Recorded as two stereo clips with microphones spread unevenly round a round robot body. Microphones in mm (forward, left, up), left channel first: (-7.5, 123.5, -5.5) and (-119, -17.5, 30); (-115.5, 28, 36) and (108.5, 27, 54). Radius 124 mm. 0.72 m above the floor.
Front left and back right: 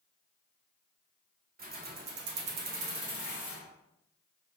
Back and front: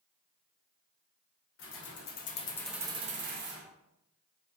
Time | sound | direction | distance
1.6 | keys jangling | 170° right | 0.9 m